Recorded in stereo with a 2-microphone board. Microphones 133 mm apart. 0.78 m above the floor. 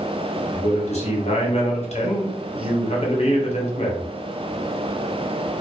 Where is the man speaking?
55° left (ahead or behind), 0.8 m.